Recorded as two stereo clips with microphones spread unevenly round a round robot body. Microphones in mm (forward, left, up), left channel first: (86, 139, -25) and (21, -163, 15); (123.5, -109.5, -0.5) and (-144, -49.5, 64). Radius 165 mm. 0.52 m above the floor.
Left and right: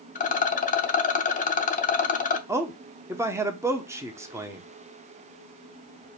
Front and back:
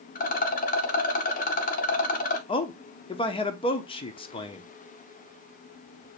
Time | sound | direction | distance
0.1 | a rattle | 25° left | 0.7 m
2.5 | a man speaking | 15° right | 0.7 m